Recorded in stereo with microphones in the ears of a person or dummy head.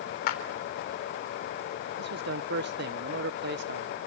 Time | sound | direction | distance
0.3 | a clap | 50° left (ahead or behind) | 3.5 m
2.0 | a man speaking | 60° right (ahead or behind) | 1.0 m